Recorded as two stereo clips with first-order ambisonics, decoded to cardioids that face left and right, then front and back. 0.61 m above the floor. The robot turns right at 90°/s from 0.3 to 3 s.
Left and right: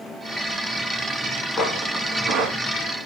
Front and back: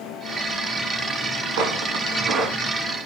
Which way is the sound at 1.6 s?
160° left.